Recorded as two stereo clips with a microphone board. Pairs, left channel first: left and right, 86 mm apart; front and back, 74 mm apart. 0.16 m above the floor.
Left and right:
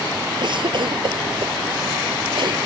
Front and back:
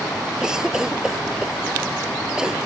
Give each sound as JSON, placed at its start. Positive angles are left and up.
{"t": 0.4, "sound": "a cough", "azimuth_deg": -100}